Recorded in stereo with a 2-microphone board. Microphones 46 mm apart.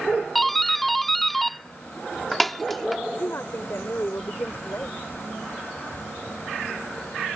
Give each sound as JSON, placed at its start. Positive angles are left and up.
{"t": 0.3, "sound": "a doorbell", "side_deg": 5}
{"t": 3.1, "sound": "a woman speaking", "side_deg": 65}